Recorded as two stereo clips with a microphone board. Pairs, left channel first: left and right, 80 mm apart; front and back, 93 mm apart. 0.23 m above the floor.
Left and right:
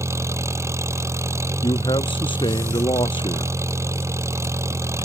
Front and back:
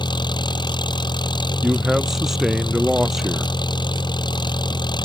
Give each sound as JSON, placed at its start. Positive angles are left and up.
{"t": 0.0, "sound": "an engine running", "azimuth_deg": -35}
{"t": 1.6, "sound": "a man speaking", "azimuth_deg": 95}